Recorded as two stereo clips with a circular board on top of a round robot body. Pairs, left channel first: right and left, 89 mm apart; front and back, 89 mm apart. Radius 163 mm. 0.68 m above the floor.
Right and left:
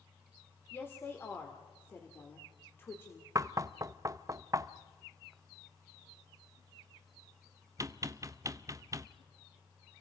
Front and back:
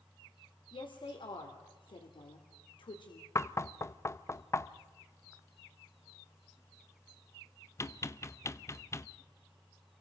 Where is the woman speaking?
25° right, 2.5 m.